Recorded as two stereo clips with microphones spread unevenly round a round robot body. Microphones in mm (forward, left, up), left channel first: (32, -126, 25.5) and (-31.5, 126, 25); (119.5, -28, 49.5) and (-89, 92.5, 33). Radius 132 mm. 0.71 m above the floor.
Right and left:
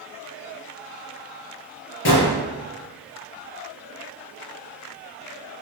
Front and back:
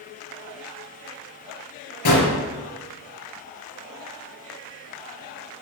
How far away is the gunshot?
About 5 m.